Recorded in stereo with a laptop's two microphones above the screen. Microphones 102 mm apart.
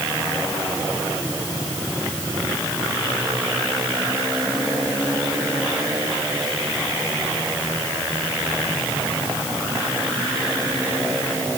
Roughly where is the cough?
I don't hear a cough.